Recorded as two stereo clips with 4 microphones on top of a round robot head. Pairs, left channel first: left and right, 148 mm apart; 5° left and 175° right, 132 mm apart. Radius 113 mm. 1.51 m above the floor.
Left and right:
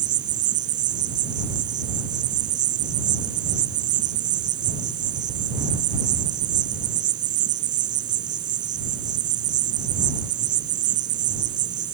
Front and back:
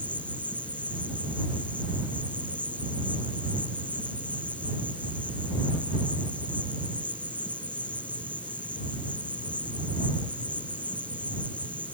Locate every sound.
0.0 s an insect: 80° right